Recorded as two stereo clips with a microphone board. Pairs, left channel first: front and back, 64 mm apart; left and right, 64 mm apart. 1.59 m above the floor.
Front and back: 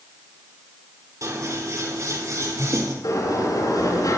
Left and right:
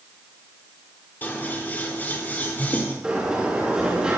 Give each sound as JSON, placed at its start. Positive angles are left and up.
{"t": 1.2, "sound": "scissors", "azimuth_deg": 150, "distance_m": 4.0}
{"t": 3.0, "sound": "a sliding door", "azimuth_deg": -15, "distance_m": 9.5}